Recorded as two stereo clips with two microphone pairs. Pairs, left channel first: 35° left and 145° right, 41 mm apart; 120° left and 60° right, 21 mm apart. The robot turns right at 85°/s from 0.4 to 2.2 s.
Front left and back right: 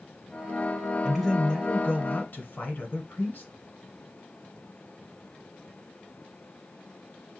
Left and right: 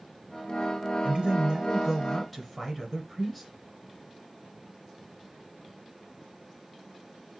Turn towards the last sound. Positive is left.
turn(degrees=40)